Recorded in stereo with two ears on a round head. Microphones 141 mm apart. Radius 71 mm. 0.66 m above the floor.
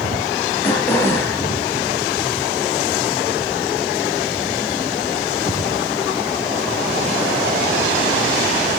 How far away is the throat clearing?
About 4.5 m.